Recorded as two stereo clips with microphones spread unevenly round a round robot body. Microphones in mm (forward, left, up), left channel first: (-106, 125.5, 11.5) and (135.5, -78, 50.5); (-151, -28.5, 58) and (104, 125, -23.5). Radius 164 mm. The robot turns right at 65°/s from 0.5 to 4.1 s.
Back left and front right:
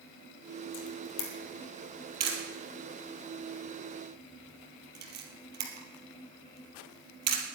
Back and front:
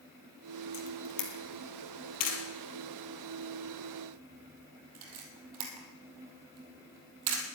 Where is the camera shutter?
160° left, 3 m; by 7.4 s 20° left, 3 m.